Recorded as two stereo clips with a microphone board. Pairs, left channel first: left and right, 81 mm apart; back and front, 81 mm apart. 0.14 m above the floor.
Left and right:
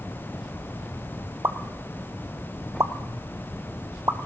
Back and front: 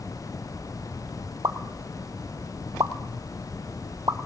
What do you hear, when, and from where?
1.4 s a pop: 40° right, 0.6 m